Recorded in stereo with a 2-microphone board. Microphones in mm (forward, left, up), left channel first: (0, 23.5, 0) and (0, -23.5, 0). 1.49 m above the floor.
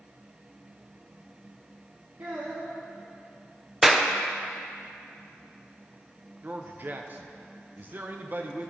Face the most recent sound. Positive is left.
turn(degrees=-40)  # may be behind; listen again after turning